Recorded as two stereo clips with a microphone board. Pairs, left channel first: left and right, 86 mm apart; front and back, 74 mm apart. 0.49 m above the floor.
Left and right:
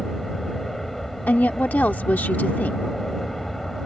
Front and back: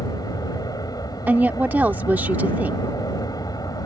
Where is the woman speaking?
140° left.